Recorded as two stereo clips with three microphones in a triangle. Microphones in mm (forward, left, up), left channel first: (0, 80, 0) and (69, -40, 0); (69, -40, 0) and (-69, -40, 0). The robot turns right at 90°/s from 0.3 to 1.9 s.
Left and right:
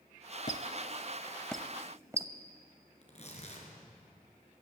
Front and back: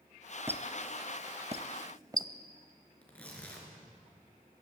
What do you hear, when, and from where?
0.5 s a squeak: 110° left, 0.9 m; by 2.3 s 120° right, 0.9 m
3.0 s tearing paper: 80° left, 4.5 m